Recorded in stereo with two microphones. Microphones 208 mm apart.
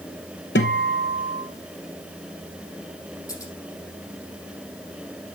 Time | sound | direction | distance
0.6 | a guitar | 60° left (ahead or behind) | 1.2 m
3.3 | scissors | 15° left (ahead or behind) | 5 m